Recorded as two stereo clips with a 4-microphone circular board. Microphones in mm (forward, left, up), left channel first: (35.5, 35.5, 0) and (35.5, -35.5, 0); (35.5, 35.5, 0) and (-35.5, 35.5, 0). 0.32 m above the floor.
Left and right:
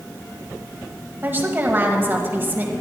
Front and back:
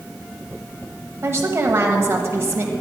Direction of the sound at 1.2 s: 140° right.